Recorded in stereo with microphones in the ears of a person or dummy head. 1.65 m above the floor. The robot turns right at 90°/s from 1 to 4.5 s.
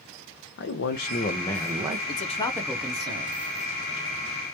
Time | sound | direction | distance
0.6 | a man speaking | 120° left | 0.6 m
2.1 | a man speaking | 120° left | 0.6 m